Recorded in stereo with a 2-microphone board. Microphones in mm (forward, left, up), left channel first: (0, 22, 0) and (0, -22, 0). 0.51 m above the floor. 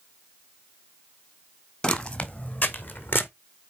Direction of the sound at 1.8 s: 25° left (ahead or behind).